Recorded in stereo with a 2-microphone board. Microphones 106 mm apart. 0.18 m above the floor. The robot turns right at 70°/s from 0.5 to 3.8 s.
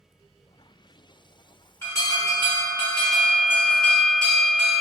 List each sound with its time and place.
1.8 s an alarm: 35° left, 2 m; by 4.8 s 170° left, 2 m